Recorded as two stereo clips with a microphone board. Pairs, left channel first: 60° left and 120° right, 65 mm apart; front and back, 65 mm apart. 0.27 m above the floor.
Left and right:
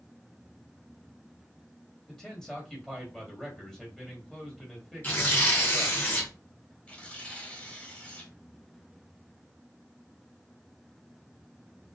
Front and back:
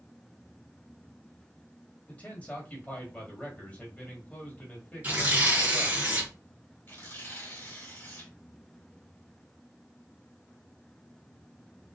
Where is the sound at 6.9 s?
5° left, 1.3 m.